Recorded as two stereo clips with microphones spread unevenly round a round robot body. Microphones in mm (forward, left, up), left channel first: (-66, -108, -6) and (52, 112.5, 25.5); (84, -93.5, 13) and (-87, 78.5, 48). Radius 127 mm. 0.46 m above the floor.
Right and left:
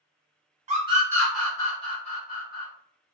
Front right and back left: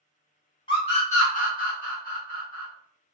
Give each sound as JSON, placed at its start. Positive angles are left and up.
{"t": 0.7, "sound": "a scream", "azimuth_deg": 0, "distance_m": 1.2}